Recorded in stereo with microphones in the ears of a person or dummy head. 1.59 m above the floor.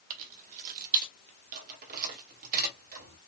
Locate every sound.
0.1 s keys jangling: 40° right (ahead or behind), 0.7 m; by 3.2 s 45° right (ahead or behind), 2.5 m